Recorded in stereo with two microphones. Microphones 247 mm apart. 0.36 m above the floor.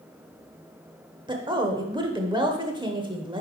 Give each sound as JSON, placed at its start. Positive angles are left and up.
{"t": 1.3, "sound": "a woman speaking", "side_deg": -20, "distance_m": 0.9}